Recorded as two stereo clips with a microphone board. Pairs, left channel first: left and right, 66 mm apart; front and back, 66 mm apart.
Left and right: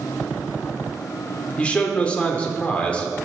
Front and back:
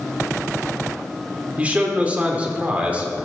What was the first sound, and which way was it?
A man speaking, 140° left.